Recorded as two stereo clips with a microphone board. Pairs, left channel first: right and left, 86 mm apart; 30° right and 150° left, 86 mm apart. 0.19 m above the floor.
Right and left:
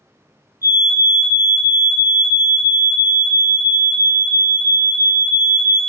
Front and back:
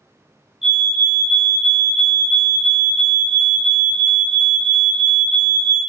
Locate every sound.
0.6 s a fire alarm: 65° left, 3 m